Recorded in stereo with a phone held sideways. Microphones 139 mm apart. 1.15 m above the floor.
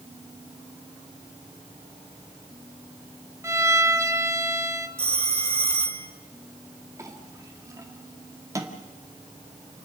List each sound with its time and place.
3.4 s a violin: 20° right (ahead or behind), 1.1 m
5.0 s a phone ringing: 40° right (ahead or behind), 1.8 m
7.0 s a clink: 25° right (ahead or behind), 2 m